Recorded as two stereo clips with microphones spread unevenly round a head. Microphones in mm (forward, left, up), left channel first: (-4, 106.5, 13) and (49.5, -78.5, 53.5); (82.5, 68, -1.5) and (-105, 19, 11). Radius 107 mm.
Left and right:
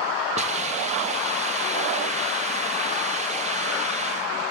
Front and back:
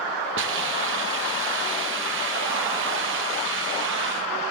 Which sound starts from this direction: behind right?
A hiss, at 0.4 s.